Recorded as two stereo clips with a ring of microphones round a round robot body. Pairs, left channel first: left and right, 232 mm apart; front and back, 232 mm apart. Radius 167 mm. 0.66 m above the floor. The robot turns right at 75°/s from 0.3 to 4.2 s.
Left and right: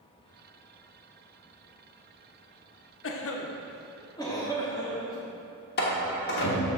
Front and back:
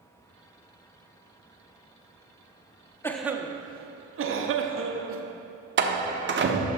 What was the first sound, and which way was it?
A cough, 80° left.